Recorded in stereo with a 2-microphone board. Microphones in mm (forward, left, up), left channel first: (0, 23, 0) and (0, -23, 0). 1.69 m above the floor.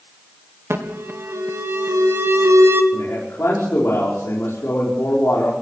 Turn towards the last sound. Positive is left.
turn(degrees=80)